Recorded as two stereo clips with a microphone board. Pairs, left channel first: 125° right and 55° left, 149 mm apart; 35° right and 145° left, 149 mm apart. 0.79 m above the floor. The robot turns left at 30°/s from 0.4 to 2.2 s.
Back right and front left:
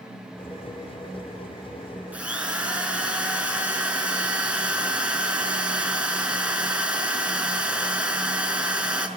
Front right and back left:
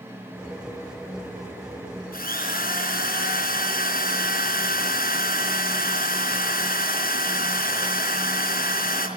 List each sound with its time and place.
2.1 s a drill: 25° right, 4.5 m